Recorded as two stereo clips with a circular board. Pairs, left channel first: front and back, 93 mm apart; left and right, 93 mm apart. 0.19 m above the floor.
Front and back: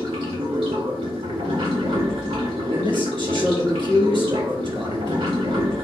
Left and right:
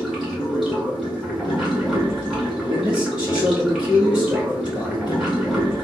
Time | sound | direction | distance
0.0 | running water | 175° right | 1.9 m
2.7 | a man speaking | 165° right | 2.5 m